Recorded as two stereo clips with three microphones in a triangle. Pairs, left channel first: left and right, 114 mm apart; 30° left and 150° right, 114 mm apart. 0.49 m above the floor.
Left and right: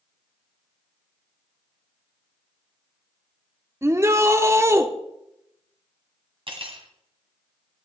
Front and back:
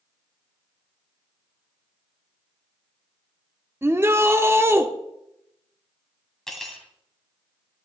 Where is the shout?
115° right, 0.8 m.